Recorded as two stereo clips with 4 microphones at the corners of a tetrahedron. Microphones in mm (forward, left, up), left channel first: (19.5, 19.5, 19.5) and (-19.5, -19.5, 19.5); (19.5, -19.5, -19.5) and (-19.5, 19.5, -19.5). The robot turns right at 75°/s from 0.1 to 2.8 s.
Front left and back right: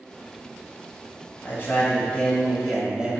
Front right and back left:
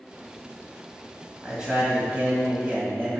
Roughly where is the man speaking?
Ahead left.